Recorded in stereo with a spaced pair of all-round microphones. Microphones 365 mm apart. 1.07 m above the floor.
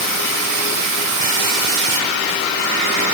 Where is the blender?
I don't hear a blender.